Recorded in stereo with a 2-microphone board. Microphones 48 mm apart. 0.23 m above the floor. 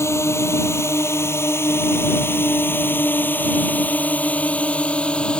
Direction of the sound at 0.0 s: 75° left (ahead or behind).